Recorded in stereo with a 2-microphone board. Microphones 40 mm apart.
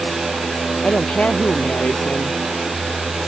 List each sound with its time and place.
0.8 s a woman speaking: 35° left (ahead or behind)